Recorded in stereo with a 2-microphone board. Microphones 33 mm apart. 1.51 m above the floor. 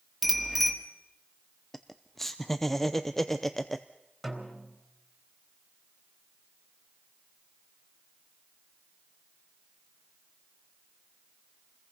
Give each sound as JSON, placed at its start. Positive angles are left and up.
{"t": 0.2, "sound": "a bicycle bell", "side_deg": 0, "distance_m": 2.5}
{"t": 1.7, "sound": "laughter", "side_deg": 5, "distance_m": 0.6}
{"t": 4.2, "sound": "a snare drum", "side_deg": 0, "distance_m": 3.5}